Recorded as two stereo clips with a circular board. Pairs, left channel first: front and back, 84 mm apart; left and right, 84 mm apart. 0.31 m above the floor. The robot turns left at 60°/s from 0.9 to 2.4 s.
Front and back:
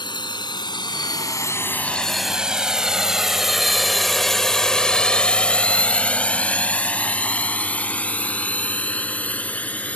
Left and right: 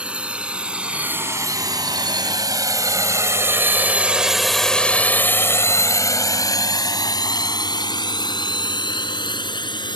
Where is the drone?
15° right; by 10.0 s 75° left.